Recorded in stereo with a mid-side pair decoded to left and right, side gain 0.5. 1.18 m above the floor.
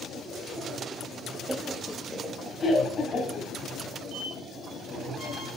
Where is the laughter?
20° right, 0.6 m; by 3.5 s 50° left, 2 m.